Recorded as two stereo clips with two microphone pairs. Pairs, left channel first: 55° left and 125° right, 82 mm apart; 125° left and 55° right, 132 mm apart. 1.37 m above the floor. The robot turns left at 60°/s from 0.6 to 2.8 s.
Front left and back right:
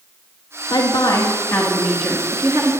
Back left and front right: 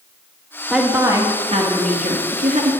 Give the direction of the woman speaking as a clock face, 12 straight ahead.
11 o'clock.